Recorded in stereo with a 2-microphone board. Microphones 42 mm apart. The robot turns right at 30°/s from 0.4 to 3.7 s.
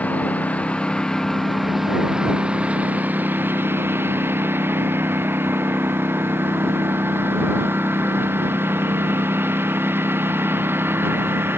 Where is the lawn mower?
145° left; by 11.6 s 115° right.